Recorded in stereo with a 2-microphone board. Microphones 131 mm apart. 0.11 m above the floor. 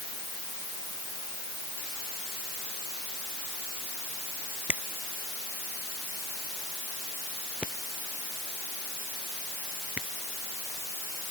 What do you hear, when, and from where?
4.7 s a finger snap: 10° right (ahead or behind)